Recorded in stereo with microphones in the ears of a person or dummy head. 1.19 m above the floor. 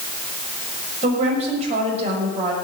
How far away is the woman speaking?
About 6 m.